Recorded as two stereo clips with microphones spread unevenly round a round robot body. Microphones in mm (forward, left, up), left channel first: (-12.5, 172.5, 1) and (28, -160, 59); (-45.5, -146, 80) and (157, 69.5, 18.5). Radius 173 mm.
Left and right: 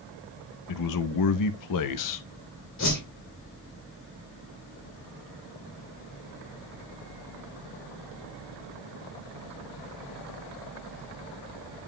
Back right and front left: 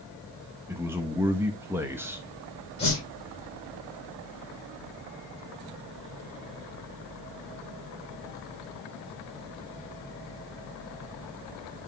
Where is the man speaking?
130° left, 0.8 m.